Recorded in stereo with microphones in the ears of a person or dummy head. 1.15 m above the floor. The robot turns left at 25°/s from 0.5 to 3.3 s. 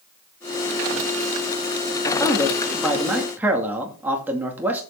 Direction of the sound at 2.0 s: 20° left.